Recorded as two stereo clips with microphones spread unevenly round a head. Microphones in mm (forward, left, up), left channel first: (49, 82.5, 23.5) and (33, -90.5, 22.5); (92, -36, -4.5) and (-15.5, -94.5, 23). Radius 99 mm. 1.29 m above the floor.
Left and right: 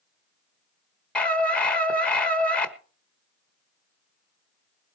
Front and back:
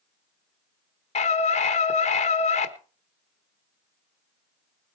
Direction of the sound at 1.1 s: Straight ahead.